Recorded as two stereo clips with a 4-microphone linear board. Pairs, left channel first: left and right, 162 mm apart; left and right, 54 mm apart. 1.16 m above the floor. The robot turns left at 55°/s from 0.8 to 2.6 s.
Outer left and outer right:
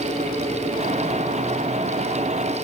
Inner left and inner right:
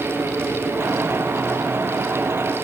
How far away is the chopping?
No chopping in this recording.